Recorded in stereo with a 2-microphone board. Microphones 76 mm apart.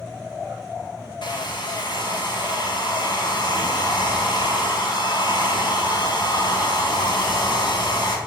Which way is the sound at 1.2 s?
70° left (ahead or behind).